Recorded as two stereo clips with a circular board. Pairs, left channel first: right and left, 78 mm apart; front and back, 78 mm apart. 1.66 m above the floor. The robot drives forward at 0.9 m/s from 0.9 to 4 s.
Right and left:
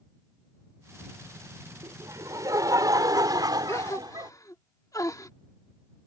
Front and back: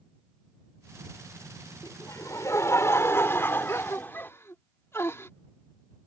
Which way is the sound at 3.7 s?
50° right.